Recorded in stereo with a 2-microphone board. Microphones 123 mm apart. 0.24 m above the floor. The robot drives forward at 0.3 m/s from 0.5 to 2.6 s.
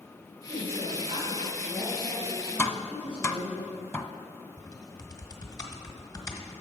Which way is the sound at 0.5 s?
55° right (ahead or behind).